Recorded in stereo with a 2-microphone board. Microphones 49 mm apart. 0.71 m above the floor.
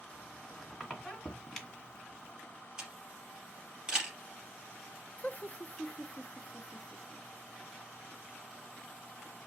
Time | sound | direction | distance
0.1 | a squeak | 5° left (ahead or behind) | 2.5 m
2.8 | a camera shutter | 15° right (ahead or behind) | 3.5 m
5.2 | laughter | 30° left (ahead or behind) | 0.7 m